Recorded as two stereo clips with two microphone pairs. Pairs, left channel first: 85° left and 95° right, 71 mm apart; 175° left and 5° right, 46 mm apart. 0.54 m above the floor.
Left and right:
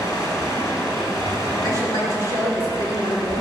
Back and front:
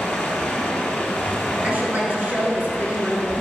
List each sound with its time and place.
0.0 s running water: 115° left, 5 m
1.6 s a woman speaking: 55° left, 7 m